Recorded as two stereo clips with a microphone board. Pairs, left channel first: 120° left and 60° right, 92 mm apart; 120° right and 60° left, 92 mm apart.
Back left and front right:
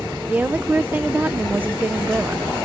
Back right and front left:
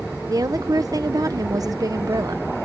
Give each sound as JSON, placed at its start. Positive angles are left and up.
{"t": 0.3, "sound": "a woman speaking", "azimuth_deg": 10}